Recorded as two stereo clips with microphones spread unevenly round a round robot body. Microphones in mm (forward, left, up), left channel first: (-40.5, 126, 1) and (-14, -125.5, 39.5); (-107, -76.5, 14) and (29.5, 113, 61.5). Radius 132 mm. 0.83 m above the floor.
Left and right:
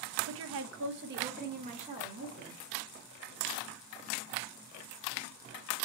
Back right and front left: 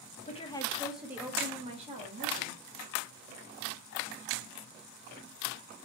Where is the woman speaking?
90° right, 0.9 m; by 2.6 s 5° right, 2 m.